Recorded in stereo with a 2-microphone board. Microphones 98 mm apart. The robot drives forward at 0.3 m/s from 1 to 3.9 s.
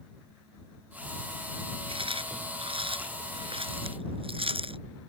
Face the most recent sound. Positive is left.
turn(degrees=-70)  # may be behind; listen again after turning